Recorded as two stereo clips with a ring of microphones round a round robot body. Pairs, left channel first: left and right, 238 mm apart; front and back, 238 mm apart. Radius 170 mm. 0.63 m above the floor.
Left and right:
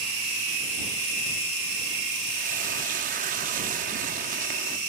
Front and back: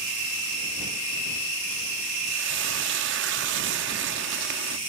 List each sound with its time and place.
2.3 s frying: 145° right